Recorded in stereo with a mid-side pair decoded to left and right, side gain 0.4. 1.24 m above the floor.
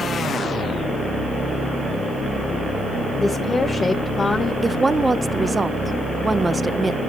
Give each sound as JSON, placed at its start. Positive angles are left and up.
{"t": 3.2, "sound": "a woman speaking", "azimuth_deg": 35, "distance_m": 1.1}
{"t": 4.6, "sound": "a woman speaking", "azimuth_deg": -25, "distance_m": 0.7}